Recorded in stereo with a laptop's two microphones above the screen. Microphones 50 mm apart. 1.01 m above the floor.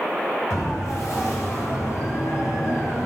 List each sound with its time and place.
0.5 s a siren: 80° left, 8 m; by 3.1 s 75° left (ahead or behind), 6.5 m